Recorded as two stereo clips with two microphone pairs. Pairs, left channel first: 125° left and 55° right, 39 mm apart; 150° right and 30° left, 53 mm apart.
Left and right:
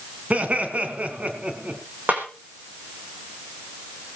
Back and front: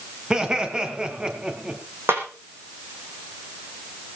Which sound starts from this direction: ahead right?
Laughter, at 0.3 s.